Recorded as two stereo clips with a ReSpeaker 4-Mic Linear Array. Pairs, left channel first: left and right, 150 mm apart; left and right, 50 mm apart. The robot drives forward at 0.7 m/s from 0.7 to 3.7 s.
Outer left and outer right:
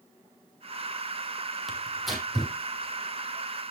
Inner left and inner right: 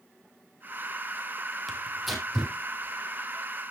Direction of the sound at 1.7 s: Centre (ahead or behind).